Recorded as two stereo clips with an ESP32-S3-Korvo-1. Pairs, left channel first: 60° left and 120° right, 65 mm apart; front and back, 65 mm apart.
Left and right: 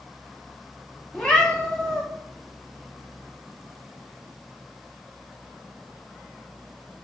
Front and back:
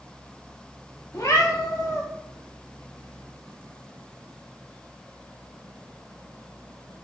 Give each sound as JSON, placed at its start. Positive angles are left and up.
{"t": 1.1, "sound": "a cat meowing", "azimuth_deg": -20, "distance_m": 0.6}